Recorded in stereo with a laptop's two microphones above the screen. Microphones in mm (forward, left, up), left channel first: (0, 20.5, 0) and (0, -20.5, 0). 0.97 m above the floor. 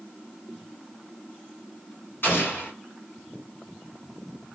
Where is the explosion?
55° left (ahead or behind), 1.4 m.